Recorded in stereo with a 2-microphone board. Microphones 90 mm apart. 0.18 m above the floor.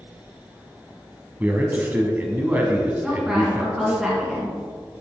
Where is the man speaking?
20° right (ahead or behind), 1.1 m.